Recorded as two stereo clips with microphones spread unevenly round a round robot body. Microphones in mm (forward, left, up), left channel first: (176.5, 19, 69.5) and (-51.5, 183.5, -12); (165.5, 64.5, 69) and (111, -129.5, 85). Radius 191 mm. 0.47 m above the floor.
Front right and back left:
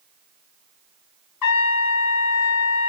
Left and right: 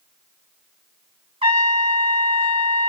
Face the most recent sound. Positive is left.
turn(degrees=-40)